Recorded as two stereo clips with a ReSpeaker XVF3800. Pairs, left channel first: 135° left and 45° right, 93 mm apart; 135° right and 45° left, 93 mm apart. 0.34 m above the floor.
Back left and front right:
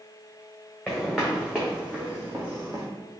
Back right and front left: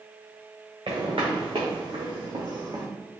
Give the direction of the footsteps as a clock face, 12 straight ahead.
10 o'clock.